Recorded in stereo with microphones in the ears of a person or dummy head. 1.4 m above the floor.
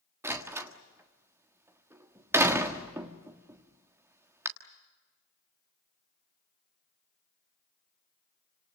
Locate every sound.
0.2 s a door slam: 10° right (ahead or behind), 1.5 m